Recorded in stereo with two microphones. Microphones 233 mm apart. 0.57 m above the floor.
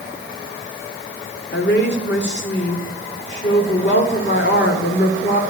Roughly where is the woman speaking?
Left.